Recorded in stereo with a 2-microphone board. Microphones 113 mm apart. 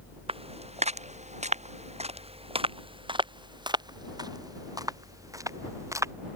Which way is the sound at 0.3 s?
60° right (ahead or behind).